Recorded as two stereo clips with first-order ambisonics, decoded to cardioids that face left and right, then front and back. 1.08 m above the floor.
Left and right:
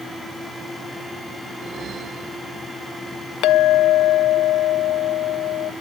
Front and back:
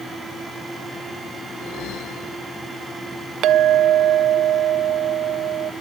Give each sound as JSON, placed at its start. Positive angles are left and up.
{"t": 1.5, "sound": "a whoosh", "azimuth_deg": -35}
{"t": 3.4, "sound": "a clink", "azimuth_deg": 130}